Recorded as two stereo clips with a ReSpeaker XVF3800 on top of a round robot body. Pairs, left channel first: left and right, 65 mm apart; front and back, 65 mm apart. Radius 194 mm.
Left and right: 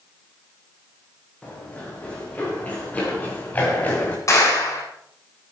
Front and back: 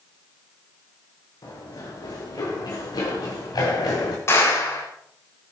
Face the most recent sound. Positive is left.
turn(degrees=50)